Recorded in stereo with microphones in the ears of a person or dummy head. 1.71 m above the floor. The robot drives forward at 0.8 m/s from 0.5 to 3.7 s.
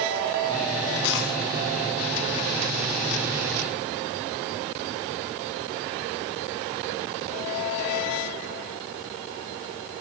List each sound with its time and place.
1.0 s a dropped coin: 75° left (ahead or behind), 6 m; by 1.3 s 80° left, 6 m